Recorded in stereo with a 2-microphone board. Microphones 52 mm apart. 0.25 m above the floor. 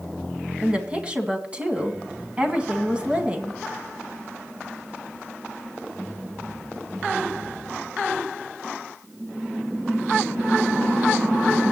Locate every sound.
0.6 s a woman speaking: 25° right (ahead or behind), 1.9 m